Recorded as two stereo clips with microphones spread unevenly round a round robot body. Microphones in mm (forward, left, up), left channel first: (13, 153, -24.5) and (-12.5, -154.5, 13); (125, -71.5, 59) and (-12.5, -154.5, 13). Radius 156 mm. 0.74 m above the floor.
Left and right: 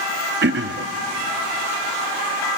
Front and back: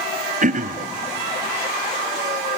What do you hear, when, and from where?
0.4 s throat clearing: 155° right, 0.9 m